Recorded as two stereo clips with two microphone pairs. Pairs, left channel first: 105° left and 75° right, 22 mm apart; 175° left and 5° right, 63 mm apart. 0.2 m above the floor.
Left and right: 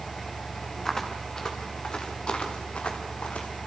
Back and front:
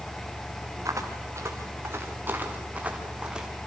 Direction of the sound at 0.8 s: 30° left.